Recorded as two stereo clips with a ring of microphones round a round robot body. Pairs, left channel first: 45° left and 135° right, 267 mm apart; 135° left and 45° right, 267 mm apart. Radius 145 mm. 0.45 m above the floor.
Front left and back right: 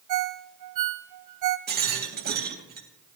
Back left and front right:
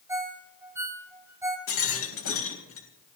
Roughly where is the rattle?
Behind.